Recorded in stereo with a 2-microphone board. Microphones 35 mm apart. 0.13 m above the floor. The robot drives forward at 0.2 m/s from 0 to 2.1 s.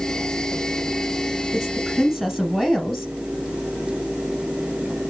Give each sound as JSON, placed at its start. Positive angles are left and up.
{"t": 1.5, "sound": "a woman speaking", "side_deg": 5, "distance_m": 1.1}